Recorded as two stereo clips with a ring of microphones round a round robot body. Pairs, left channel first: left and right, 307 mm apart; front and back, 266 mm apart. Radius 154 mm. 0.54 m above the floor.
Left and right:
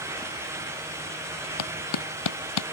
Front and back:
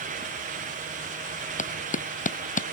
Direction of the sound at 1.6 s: 60° left.